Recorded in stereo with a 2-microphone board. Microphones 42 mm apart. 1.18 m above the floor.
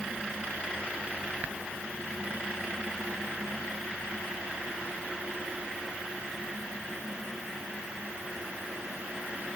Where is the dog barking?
I don't hear a dog barking.